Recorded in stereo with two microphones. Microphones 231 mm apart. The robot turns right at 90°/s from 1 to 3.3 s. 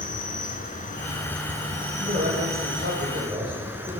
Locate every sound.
0.0 s an insect: 145° left, 3 m; by 4.0 s 10° right, 3 m
2.0 s a man speaking: 140° right, 5 m; by 4.0 s 25° right, 5 m